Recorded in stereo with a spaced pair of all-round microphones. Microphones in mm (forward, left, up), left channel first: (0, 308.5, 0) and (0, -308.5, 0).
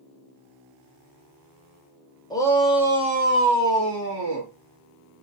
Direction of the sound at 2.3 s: 5° left (ahead or behind).